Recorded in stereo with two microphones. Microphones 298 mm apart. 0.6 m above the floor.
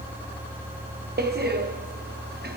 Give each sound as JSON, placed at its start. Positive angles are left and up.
{"t": 1.2, "sound": "a door slam", "side_deg": -30, "distance_m": 0.6}